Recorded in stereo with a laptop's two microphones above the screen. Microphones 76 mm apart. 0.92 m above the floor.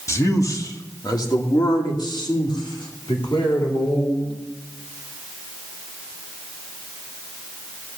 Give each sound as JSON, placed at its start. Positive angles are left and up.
{"t": 0.1, "sound": "a man speaking", "side_deg": 40, "distance_m": 2.0}